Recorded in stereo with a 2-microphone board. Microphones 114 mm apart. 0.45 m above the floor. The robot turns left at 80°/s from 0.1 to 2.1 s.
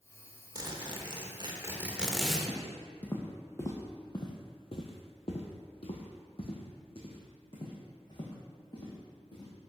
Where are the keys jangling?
I don't hear keys jangling.